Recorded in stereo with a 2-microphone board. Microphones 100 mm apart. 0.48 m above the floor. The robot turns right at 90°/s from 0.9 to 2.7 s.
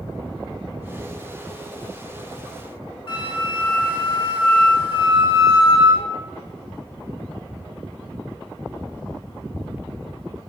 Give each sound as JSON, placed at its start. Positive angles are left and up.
{"t": 3.1, "sound": "a flute", "side_deg": 55, "distance_m": 3.5}